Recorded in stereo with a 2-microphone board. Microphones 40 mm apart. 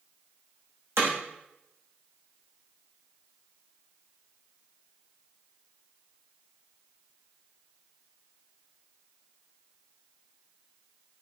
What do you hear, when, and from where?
1.0 s hammering: 75° right (ahead or behind), 6.5 m